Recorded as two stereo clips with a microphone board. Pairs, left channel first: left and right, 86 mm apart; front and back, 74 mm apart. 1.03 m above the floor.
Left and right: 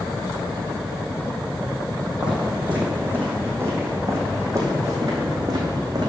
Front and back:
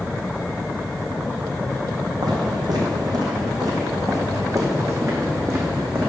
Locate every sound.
2.2 s footsteps: 165° right, 2.5 m; by 6.1 s 125° right, 3 m